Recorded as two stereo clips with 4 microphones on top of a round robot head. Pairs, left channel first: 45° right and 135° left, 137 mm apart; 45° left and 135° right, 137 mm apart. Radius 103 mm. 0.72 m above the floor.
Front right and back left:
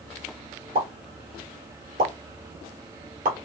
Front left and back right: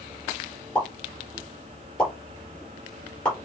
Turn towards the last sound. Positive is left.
turn(degrees=125)